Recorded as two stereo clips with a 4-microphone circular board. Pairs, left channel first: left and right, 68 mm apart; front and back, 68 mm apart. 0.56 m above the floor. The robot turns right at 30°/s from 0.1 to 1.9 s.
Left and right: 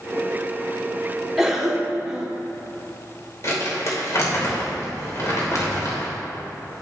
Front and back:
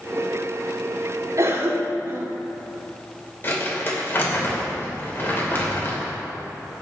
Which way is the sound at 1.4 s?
Straight behind.